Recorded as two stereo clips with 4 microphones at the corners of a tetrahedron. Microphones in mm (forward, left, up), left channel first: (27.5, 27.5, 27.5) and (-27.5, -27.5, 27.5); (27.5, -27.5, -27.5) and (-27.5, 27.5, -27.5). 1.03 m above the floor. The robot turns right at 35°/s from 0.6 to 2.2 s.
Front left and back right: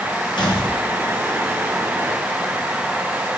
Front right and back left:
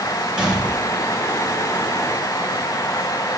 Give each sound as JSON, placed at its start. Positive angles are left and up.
{"t": 0.4, "sound": "a gunshot", "azimuth_deg": 55, "distance_m": 1.4}